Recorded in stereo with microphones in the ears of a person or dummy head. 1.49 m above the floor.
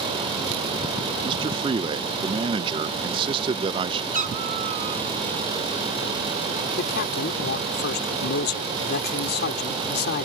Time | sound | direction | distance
1.2 | a man speaking | 20° right (ahead or behind) | ?
4.1 | a cat meowing | 40° right (ahead or behind) | ?
6.8 | a man speaking | 55° left (ahead or behind) | ?